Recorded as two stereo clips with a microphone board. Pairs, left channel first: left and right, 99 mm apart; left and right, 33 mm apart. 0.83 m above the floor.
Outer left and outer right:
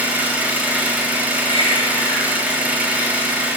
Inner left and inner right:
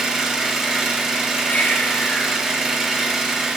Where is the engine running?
15° right (ahead or behind), 0.9 m.